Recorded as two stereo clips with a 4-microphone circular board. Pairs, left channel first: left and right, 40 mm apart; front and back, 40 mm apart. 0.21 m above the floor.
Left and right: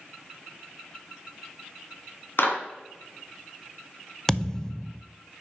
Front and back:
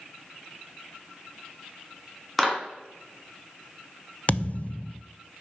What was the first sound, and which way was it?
A clap, 90° left.